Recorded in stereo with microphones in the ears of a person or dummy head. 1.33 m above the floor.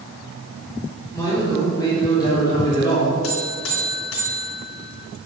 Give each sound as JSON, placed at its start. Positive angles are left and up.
{"t": 1.1, "sound": "a man speaking", "side_deg": 20, "distance_m": 4.0}
{"t": 3.2, "sound": "a buzzer", "side_deg": 70, "distance_m": 3.0}